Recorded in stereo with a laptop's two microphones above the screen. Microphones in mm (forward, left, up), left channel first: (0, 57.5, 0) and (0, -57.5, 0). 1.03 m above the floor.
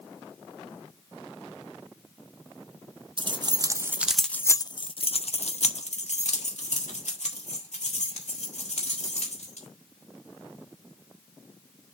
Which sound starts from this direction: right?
Keys jangling, at 3.2 s.